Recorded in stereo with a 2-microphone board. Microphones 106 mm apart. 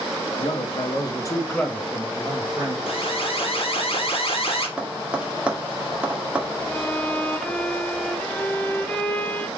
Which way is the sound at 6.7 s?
10° left (ahead or behind).